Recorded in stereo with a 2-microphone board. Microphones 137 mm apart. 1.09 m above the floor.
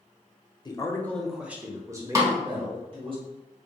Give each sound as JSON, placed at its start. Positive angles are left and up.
{"t": 0.7, "sound": "a man speaking", "side_deg": 30, "distance_m": 0.7}
{"t": 2.1, "sound": "a snare drum", "side_deg": -25, "distance_m": 1.1}